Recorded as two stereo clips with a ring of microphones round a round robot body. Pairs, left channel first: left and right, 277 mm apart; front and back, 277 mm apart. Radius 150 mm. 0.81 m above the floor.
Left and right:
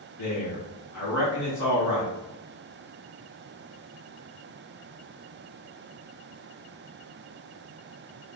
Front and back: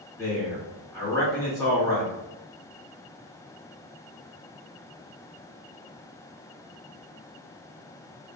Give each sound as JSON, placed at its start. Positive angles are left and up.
{"t": 0.2, "sound": "a man speaking", "azimuth_deg": 75, "distance_m": 1.7}